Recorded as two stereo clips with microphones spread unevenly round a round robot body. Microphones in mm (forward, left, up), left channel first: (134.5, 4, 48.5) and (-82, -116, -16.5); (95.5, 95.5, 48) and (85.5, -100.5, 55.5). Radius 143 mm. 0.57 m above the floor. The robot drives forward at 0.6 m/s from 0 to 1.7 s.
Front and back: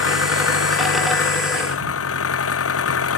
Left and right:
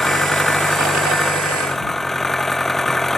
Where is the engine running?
Straight ahead.